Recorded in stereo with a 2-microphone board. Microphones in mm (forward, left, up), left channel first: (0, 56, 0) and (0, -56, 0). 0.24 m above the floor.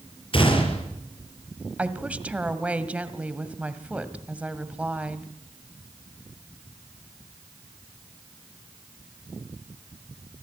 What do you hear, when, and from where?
0.3 s a gunshot: 50° left (ahead or behind), 6 m
1.8 s a woman speaking: 10° right (ahead or behind), 1.6 m